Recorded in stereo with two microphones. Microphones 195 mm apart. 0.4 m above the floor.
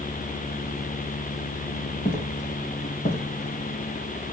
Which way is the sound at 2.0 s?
45° left (ahead or behind).